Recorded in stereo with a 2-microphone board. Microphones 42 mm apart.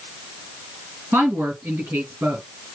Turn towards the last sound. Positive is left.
turn(degrees=-60)  # may be behind; listen again after turning